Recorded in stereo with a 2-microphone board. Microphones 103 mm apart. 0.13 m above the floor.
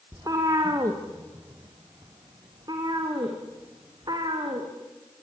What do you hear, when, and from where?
0.1 s a cat meowing: 35° right (ahead or behind), 3 m; by 4.7 s 45° right (ahead or behind), 5.5 m